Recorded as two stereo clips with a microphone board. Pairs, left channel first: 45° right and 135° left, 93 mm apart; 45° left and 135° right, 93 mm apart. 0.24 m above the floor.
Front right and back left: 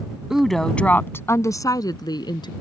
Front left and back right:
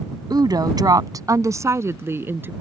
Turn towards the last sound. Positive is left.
turn(degrees=-70)